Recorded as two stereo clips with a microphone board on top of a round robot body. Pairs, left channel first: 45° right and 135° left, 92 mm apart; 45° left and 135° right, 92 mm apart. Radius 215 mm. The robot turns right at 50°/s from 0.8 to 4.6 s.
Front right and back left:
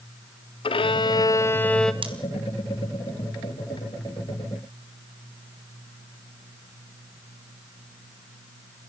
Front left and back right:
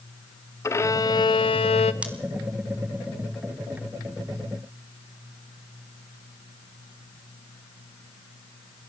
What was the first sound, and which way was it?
A violin, 15° right.